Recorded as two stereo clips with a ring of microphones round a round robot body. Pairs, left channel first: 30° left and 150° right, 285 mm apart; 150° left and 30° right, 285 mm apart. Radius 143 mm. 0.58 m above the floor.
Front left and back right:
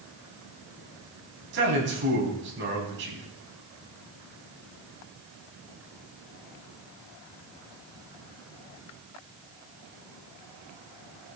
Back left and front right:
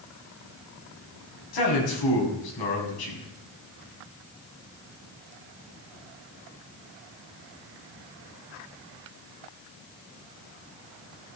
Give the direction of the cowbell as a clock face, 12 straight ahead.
I don't hear a cowbell.